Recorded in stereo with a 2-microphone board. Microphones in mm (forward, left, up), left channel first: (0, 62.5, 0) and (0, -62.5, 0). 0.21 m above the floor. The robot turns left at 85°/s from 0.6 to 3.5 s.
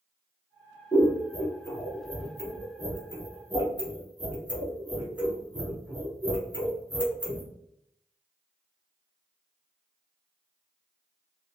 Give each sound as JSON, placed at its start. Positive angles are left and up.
{"t": 0.9, "sound": "scissors", "side_deg": 30, "distance_m": 1.0}